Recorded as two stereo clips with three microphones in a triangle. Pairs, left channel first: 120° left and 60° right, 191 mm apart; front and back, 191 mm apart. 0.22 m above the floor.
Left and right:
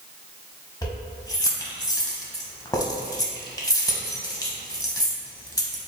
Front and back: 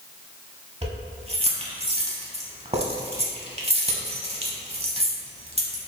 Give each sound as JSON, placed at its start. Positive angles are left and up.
{"t": 0.8, "sound": "keys jangling", "azimuth_deg": 170, "distance_m": 0.7}